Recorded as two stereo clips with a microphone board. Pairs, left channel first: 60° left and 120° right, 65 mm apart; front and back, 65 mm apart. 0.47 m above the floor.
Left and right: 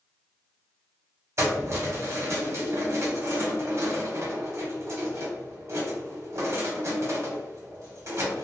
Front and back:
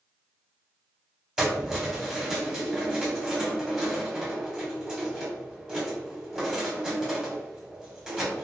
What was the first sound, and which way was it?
Keys jangling, 105° right.